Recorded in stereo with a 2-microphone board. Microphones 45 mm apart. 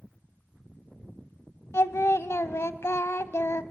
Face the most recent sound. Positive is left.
turn(degrees=90)